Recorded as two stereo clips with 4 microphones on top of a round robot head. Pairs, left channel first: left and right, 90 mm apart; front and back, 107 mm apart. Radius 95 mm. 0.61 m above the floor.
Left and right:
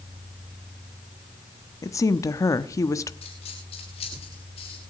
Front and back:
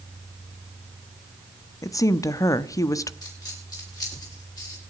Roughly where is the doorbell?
I don't hear a doorbell.